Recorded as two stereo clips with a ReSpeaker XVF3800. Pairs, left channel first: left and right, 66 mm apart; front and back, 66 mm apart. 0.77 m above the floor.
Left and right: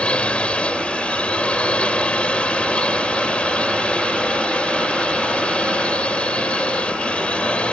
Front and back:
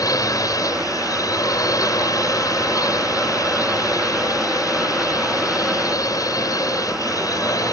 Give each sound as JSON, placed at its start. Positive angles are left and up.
{"t": 0.0, "sound": "a drone", "azimuth_deg": 20}